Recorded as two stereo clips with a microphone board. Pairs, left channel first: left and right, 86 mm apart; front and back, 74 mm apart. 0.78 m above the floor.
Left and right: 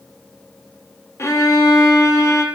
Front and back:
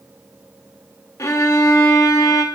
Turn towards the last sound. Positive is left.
turn(degrees=40)